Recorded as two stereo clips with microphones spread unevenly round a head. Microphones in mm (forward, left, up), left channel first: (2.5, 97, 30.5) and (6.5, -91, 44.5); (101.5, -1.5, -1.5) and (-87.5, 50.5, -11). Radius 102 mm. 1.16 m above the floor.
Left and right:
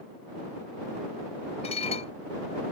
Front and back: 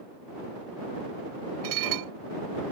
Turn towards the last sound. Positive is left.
turn(degrees=155)